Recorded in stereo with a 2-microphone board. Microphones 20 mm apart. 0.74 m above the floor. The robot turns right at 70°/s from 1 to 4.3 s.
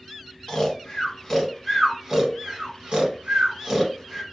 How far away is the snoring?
About 1.0 m.